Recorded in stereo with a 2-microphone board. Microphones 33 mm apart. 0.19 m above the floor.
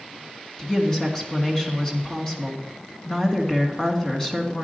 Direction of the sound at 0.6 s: 20° left (ahead or behind).